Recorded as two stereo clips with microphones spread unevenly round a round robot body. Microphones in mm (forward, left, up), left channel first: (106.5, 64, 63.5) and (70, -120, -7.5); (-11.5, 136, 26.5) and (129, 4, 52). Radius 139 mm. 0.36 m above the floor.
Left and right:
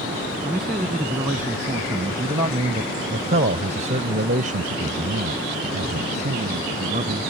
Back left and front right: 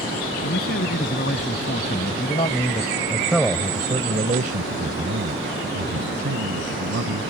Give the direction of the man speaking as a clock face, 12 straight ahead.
6 o'clock.